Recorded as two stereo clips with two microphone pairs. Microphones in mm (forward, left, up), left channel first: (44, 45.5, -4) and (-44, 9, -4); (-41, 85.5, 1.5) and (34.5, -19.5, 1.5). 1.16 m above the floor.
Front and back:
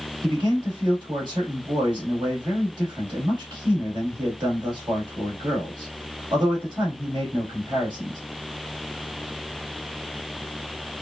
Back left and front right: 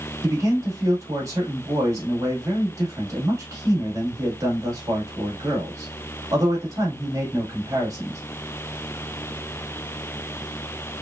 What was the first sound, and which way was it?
A man speaking, 120° right.